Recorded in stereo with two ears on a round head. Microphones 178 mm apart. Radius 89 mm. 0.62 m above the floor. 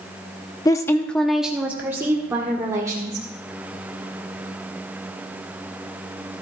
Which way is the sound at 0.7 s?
20° left (ahead or behind).